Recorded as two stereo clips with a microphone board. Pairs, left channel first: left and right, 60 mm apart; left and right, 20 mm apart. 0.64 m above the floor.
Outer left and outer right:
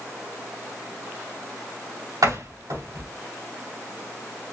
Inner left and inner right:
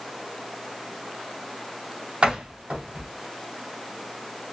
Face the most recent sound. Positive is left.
turn(degrees=-80)